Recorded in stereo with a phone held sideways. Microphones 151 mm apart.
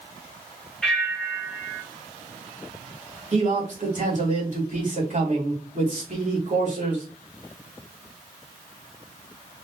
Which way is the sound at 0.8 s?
5° left (ahead or behind).